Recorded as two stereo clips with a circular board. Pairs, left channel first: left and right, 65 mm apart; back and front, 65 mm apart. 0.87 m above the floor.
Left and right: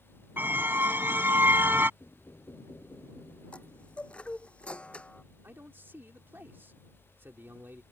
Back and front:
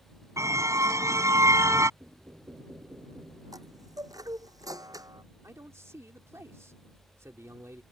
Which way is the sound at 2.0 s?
50° left.